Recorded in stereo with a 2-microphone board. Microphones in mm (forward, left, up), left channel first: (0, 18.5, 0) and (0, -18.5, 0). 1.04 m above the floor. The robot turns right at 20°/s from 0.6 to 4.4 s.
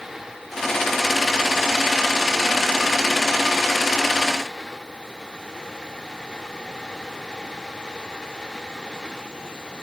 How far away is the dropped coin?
No dropped coin in this recording.